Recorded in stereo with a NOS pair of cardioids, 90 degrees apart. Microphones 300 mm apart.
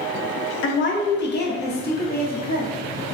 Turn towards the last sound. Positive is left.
turn(degrees=30)